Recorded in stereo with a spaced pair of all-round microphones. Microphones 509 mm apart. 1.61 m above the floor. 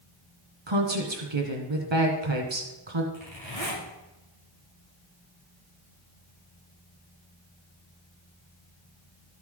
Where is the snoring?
I don't hear snoring.